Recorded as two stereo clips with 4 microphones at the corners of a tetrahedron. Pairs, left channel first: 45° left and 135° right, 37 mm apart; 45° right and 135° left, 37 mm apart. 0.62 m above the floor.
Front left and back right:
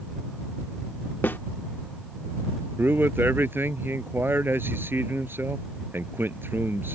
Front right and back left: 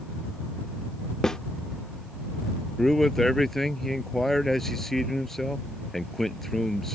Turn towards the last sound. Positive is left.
turn(degrees=-125)